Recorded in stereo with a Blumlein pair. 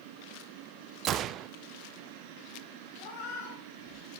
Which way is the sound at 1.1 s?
30° right.